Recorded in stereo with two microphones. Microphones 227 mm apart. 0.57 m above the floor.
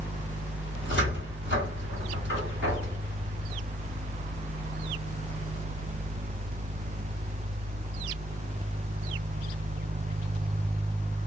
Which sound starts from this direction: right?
A cupboard door, at 0.8 s.